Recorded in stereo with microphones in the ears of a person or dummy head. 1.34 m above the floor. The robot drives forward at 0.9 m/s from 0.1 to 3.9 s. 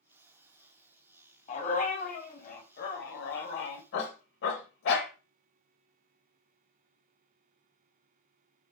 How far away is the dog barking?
About 4 m.